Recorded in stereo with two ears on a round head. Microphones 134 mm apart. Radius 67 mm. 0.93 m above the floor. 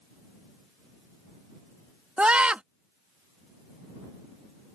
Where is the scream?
5° right (ahead or behind).